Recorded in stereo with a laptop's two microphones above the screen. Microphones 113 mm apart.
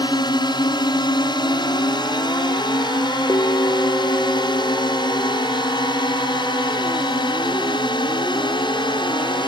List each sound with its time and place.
0.0 s a drone: 40° left (ahead or behind); by 9.5 s 45° left (ahead or behind)
3.3 s a bell: 30° left (ahead or behind)